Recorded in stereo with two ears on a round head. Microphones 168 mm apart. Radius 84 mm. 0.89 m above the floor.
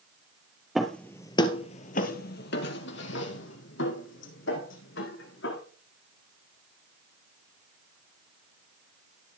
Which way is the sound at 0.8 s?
Centre (ahead or behind).